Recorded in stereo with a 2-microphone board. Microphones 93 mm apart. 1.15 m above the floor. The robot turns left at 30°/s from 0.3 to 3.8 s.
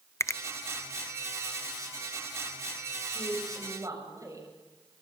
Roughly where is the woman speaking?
Right.